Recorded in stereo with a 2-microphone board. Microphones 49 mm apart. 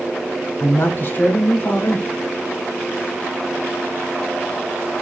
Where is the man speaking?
40° left (ahead or behind), 1.3 m.